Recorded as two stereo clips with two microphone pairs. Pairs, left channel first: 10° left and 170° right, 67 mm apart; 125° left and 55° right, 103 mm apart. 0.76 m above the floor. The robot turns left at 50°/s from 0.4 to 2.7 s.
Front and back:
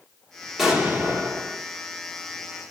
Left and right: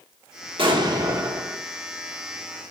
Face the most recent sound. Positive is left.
turn(degrees=165)